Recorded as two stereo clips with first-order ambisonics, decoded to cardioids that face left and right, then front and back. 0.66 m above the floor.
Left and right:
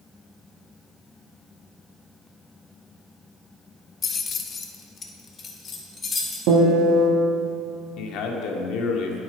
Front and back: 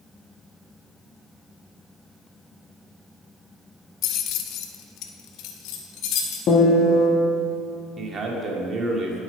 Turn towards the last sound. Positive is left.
turn(degrees=115)